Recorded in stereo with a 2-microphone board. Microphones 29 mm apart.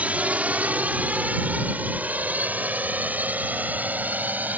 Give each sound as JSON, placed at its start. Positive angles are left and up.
{"t": 0.0, "sound": "a drone", "side_deg": -55}